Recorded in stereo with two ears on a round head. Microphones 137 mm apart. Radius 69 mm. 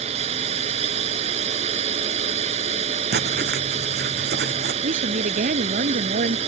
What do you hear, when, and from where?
0.0 s a drone: 40° right (ahead or behind)
3.1 s writing: 70° right (ahead or behind)
4.8 s a woman speaking: 55° right (ahead or behind)